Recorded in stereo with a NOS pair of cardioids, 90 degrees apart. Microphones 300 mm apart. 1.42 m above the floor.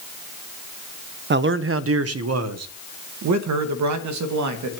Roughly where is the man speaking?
Ahead right.